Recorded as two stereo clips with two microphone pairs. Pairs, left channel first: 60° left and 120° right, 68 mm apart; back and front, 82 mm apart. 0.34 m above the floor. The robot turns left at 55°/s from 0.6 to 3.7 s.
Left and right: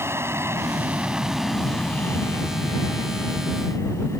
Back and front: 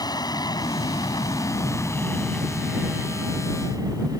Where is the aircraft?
165° right; by 4.2 s 25° left.